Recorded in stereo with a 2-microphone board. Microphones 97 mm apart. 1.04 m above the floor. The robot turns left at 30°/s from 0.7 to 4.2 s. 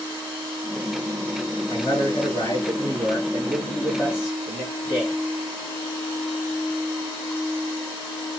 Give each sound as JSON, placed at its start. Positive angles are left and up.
{"t": 1.7, "sound": "a man speaking", "azimuth_deg": 60, "distance_m": 1.5}